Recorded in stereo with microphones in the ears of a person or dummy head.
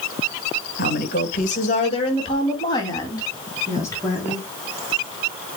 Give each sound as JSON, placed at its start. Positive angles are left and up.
{"t": 0.8, "sound": "a woman speaking", "side_deg": 60, "distance_m": 1.9}